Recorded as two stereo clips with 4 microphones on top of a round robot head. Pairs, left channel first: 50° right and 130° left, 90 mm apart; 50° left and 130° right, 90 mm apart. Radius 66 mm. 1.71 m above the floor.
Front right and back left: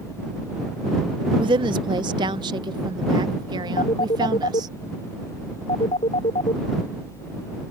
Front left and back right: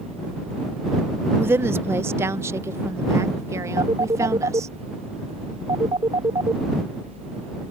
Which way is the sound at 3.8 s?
80° right.